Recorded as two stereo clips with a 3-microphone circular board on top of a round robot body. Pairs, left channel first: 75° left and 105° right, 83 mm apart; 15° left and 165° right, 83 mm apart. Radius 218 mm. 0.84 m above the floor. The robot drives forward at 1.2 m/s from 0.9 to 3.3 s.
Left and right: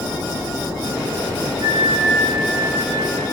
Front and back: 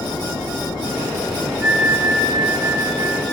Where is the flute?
90° right, 1.6 m; by 3.4 s 145° right, 2.5 m.